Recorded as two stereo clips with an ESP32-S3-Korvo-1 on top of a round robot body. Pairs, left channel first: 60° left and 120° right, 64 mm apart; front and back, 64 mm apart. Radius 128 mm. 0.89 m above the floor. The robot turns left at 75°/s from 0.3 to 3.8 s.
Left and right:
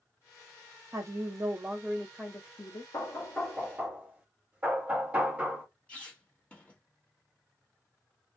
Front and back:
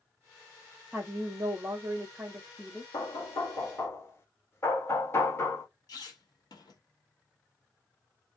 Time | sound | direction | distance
0.9 | a woman speaking | 120° right | 1.0 m
2.9 | knocking | 10° left | 1.4 m
5.9 | a squeak | 15° right | 1.2 m